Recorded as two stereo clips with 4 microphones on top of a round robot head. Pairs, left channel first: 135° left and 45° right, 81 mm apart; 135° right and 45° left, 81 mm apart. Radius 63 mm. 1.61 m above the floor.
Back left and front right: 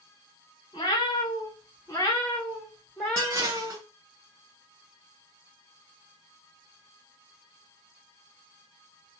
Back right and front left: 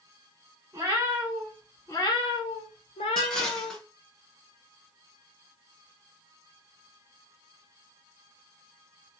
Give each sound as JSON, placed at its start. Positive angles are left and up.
{"t": 0.7, "sound": "a cat meowing", "azimuth_deg": 100, "distance_m": 1.1}
{"t": 3.2, "sound": "dishes clattering", "azimuth_deg": -60, "distance_m": 0.6}